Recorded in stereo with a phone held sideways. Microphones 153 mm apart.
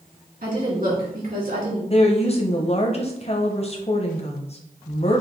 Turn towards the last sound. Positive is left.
turn(degrees=40)  # may be behind; listen again after turning